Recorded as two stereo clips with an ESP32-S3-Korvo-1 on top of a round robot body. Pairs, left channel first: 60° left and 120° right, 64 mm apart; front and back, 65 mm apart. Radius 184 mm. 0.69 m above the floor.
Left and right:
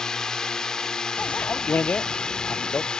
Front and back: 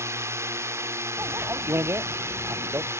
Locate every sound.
0.0 s a drone: 140° left; by 3.0 s 135° left
1.2 s a bicycle bell: 125° left